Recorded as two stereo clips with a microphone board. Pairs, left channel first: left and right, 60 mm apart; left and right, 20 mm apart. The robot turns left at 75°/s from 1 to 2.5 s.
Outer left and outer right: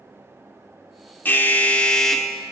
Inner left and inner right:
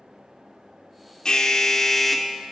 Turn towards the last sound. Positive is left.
turn(degrees=-20)